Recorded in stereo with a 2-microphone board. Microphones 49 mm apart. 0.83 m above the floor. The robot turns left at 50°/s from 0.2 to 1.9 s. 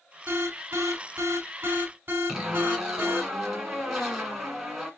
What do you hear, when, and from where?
0.3 s an alarm: 55° right, 1.5 m; by 3.3 s 135° right, 1.5 m
2.3 s a zipper: 10° right (ahead or behind), 1.9 m